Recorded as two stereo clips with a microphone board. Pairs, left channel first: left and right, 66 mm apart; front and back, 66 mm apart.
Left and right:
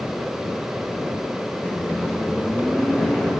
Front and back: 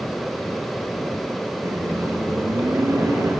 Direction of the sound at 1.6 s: 155° left.